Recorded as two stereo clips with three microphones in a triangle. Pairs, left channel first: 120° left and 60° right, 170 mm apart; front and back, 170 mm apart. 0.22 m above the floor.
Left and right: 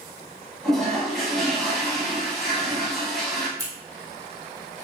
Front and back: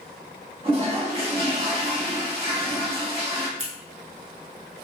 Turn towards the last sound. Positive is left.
turn(degrees=-130)